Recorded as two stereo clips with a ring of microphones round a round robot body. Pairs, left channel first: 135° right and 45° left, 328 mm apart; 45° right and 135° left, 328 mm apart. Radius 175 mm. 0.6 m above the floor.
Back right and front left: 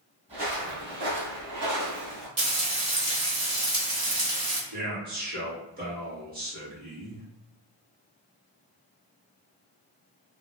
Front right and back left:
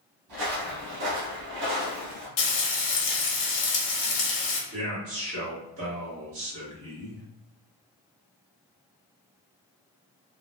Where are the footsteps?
115° left, 1.5 m; by 2.3 s 65° left, 1.4 m.